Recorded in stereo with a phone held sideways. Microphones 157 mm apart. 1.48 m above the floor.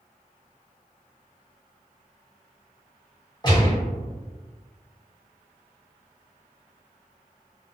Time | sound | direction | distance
3.4 | a gunshot | 30° left (ahead or behind) | 1.3 m